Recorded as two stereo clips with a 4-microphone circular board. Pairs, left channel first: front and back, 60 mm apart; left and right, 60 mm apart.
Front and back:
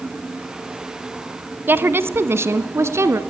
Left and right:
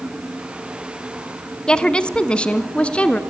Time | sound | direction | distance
1.7 | a woman speaking | 155° left | 1.3 m